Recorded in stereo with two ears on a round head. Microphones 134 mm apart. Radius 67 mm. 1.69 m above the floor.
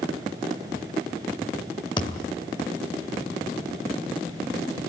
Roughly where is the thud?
Left.